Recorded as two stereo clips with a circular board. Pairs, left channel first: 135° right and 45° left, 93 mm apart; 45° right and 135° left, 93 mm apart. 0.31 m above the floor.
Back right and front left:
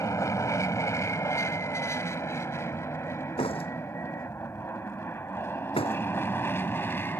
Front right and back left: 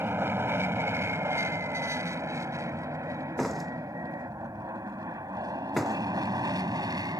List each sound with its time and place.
0.0 s an aircraft: 170° right; by 7.2 s 165° left
3.4 s a door slam: 135° right